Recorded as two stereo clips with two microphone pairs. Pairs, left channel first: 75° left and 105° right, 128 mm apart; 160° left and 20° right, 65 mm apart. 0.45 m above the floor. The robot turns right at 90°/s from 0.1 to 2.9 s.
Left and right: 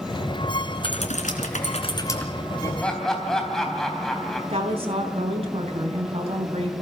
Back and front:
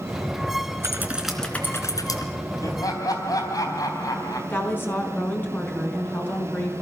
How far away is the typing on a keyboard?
About 3 m.